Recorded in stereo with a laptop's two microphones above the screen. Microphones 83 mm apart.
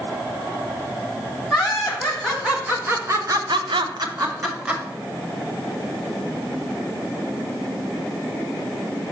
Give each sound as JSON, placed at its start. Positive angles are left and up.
{"t": 1.5, "sound": "laughter", "side_deg": -5, "distance_m": 2.5}